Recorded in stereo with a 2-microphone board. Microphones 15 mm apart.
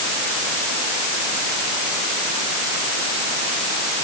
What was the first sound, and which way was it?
Only background noise.